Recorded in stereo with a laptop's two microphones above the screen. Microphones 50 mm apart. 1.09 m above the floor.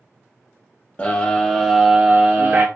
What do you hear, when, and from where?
1.0 s a scream: 30° left (ahead or behind), 0.6 m; by 2.6 s 40° right (ahead or behind), 0.6 m